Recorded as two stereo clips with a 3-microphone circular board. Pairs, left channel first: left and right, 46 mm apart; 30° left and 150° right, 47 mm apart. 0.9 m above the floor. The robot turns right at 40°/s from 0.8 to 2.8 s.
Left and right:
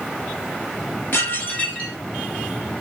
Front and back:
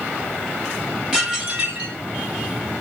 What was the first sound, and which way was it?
Dishes clattering, 135° left.